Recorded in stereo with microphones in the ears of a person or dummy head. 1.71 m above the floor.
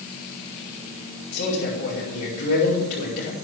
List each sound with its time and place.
1.3 s a man speaking: 60° left (ahead or behind), 5 m